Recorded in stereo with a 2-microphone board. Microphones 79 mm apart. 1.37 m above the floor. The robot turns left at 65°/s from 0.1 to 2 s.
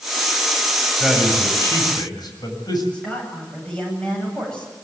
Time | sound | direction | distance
1.0 | a man speaking | 175° right | 7 m
2.9 | a woman speaking | 10° left (ahead or behind) | 10 m